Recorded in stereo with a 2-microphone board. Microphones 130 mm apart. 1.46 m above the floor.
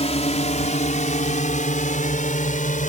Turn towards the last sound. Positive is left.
turn(degrees=85)